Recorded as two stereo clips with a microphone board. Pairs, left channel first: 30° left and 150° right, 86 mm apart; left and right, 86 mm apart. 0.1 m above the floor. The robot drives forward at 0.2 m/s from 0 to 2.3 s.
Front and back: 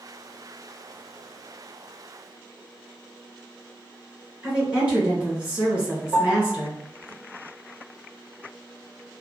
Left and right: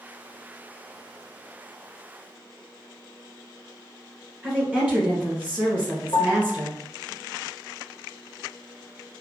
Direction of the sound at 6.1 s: 115° left.